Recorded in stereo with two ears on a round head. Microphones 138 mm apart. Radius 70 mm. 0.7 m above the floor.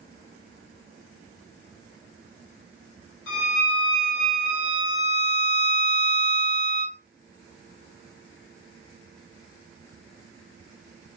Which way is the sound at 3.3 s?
75° left (ahead or behind).